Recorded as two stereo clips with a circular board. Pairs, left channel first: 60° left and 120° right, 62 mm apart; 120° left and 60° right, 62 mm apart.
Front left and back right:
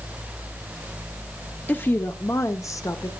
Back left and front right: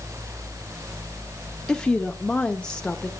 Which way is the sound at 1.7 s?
55° left.